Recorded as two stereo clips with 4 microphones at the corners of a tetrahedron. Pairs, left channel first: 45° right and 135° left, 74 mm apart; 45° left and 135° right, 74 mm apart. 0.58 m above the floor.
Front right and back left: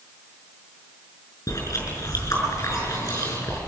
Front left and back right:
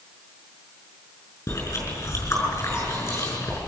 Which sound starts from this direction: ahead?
Chewing, at 1.5 s.